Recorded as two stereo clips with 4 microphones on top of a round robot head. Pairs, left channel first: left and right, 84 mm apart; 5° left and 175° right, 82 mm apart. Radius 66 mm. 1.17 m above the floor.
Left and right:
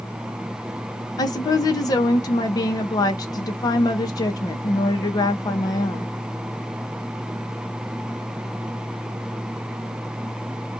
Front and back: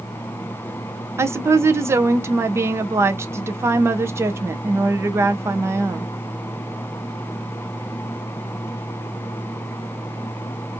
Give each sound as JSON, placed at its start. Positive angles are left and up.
{"t": 1.2, "sound": "a woman speaking", "azimuth_deg": 130, "distance_m": 0.7}